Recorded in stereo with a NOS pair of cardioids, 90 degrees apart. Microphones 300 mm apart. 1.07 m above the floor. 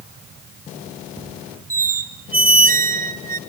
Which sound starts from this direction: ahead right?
A squeak, at 1.7 s.